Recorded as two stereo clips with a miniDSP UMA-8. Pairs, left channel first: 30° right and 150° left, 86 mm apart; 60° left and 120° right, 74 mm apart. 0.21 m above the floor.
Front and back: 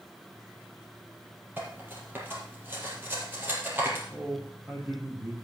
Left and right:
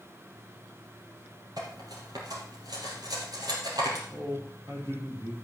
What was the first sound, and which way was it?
Cutlery clinking, 145° right.